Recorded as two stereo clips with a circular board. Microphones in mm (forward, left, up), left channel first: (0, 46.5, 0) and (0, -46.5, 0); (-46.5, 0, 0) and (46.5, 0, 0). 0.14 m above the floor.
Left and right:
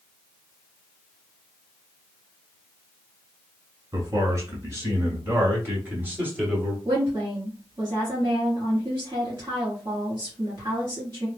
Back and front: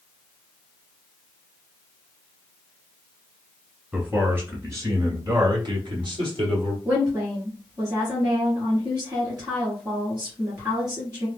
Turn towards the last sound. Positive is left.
turn(degrees=-40)